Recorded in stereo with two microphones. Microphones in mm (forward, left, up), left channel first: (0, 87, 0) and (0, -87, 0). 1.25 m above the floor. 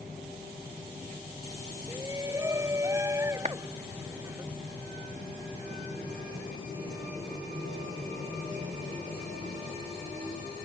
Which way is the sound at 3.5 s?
40° right (ahead or behind).